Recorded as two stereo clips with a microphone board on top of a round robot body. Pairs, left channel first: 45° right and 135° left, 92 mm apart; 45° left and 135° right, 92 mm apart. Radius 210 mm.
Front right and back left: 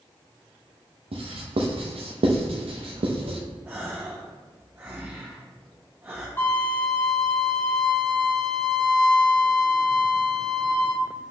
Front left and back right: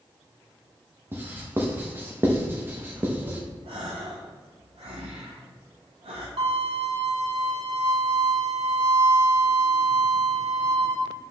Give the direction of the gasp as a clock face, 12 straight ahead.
5 o'clock.